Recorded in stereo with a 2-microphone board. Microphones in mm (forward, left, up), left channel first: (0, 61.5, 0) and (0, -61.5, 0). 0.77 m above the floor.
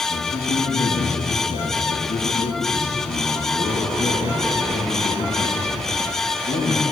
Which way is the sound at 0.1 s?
70° left (ahead or behind).